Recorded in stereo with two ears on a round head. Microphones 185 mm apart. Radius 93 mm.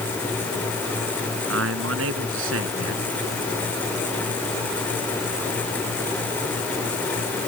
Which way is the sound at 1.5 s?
65° right (ahead or behind).